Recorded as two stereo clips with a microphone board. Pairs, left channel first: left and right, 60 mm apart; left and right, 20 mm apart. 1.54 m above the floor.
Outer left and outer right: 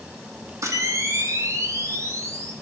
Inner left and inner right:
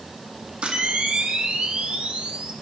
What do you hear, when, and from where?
0.6 s a camera shutter: 55° right (ahead or behind), 0.7 m